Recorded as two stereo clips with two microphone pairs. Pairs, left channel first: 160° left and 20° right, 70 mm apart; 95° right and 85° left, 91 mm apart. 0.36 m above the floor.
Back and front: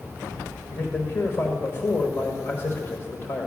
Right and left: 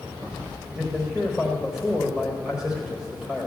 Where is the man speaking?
165° left, 1.4 m.